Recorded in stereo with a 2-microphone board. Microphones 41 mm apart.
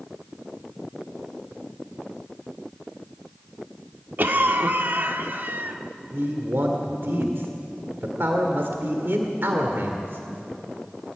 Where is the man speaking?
65° right (ahead or behind), 1.9 m.